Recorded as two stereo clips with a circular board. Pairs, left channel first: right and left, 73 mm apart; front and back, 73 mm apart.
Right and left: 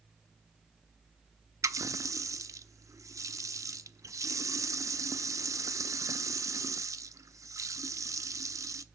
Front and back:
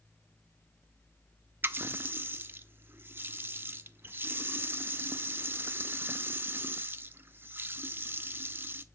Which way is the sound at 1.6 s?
125° left.